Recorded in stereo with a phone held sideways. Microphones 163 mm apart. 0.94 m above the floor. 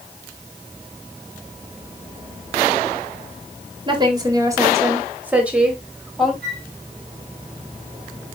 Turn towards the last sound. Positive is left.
turn(degrees=-85)